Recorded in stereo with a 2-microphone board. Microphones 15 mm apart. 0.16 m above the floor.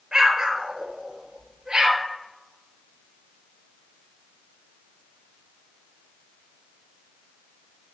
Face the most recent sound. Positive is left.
turn(degrees=-50)  # may be behind; listen again after turning